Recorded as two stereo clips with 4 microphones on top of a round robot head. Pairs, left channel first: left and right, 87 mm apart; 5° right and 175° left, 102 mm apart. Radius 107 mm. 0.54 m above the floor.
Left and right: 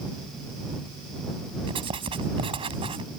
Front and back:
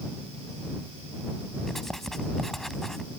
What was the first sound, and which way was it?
Writing, 90° right.